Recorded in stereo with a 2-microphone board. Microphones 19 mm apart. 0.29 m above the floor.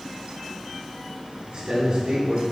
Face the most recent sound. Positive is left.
turn(degrees=-55)  # may be behind; listen again after turning